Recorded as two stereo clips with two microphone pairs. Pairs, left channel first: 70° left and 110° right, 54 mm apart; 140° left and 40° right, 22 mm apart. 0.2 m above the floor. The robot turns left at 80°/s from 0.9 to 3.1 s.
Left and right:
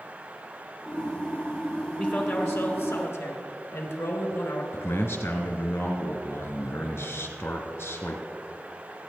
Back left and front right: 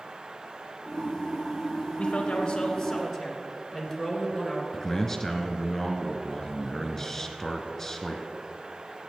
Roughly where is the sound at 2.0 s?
Behind left.